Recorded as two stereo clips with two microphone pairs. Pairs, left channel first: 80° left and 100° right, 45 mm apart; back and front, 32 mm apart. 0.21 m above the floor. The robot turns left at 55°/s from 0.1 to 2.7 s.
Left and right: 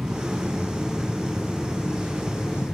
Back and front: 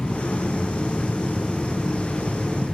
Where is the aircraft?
155° right; by 2.7 s 60° left.